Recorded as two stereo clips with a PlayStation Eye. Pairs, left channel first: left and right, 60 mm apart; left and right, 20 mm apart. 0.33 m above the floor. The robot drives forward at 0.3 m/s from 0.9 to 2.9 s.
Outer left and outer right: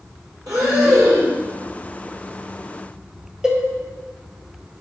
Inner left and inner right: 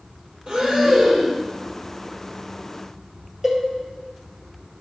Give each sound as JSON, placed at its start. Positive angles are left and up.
{"t": 0.5, "sound": "breathing", "side_deg": -70, "distance_m": 4.5}
{"t": 3.4, "sound": "a cowbell", "side_deg": -10, "distance_m": 2.5}